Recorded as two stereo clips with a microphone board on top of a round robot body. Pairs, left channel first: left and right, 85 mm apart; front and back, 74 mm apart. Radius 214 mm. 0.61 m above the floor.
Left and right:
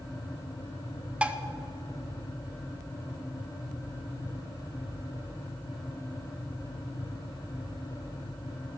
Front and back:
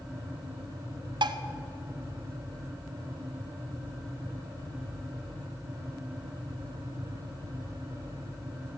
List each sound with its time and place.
1.2 s dishes clattering: 165° right, 0.7 m